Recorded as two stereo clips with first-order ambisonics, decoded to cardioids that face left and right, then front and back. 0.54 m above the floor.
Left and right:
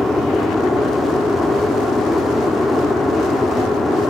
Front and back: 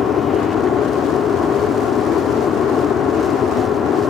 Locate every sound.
0.0 s an aircraft: 15° left